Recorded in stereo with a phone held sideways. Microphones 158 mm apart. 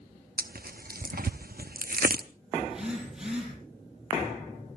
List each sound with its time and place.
0.4 s tearing paper: 70° right (ahead or behind), 0.7 m
2.6 s a phone buzzing: 5° right (ahead or behind), 7.5 m